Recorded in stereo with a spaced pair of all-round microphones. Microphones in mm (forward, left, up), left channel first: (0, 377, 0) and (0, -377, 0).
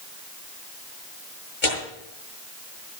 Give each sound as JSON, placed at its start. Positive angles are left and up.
{"t": 1.6, "sound": "tearing paper", "side_deg": 80, "distance_m": 8.0}